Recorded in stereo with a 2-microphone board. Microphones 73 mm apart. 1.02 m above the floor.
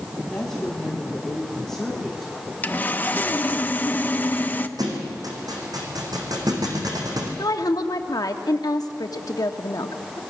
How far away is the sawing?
About 0.8 m.